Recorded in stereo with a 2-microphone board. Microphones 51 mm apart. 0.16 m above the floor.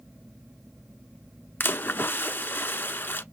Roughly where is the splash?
Left.